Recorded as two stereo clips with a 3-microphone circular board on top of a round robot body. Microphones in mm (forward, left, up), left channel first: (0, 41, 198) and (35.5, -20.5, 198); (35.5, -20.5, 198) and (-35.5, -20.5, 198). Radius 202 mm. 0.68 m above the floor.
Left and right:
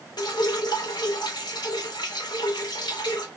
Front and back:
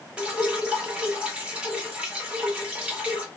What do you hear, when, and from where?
0.2 s dripping: 110° left, 1.5 m